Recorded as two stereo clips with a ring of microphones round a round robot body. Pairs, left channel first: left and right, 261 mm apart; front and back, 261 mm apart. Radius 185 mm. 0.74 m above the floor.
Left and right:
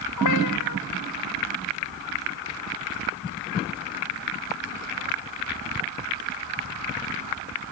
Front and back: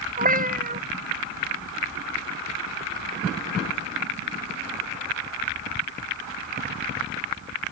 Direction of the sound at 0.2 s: 125° left.